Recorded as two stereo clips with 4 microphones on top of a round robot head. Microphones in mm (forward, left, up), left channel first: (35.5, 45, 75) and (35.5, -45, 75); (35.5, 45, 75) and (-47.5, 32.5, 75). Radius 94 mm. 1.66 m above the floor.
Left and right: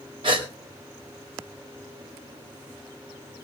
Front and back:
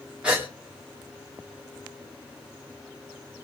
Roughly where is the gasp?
Right.